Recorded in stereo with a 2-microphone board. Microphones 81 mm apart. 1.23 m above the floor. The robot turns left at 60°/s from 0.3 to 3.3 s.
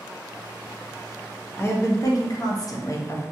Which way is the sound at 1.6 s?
140° left.